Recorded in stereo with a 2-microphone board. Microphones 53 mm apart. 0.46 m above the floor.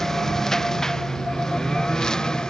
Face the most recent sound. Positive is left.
turn(degrees=10)  # may be behind; listen again after turning